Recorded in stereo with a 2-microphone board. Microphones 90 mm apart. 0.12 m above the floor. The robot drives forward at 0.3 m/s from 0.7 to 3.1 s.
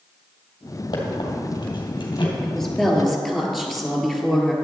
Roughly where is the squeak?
Left.